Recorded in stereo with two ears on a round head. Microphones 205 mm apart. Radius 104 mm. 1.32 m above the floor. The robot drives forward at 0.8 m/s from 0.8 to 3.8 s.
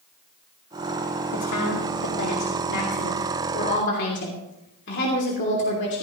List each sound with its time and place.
1.3 s a woman speaking: 85° left, 2.5 m; by 6.0 s 55° left (ahead or behind), 3 m